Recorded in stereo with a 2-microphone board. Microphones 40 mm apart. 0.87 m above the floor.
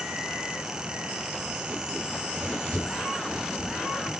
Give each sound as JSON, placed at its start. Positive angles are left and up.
{"t": 2.1, "sound": "running footsteps", "side_deg": -20, "distance_m": 6.0}